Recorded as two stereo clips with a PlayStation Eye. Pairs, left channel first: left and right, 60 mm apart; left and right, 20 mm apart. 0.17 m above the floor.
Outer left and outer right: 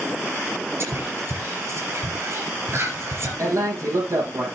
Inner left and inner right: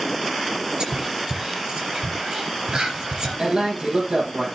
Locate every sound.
0.8 s whispering: 45° right (ahead or behind), 3.5 m
3.4 s a man speaking: 55° right (ahead or behind), 7.5 m